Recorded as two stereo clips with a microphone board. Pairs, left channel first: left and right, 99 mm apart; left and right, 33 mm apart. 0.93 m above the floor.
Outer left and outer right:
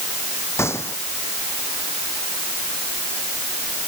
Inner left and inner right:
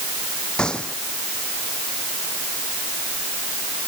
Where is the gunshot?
25° left (ahead or behind).